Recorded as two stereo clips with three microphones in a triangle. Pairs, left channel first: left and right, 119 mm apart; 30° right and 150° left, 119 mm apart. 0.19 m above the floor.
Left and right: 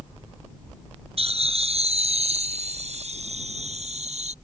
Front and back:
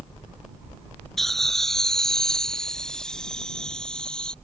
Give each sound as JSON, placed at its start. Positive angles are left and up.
{"t": 1.2, "sound": "laughter", "azimuth_deg": -115}